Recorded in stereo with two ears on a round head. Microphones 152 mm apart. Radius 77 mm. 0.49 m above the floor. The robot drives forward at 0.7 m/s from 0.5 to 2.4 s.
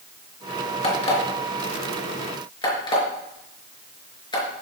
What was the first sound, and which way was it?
An alarm clock, 40° left (ahead or behind).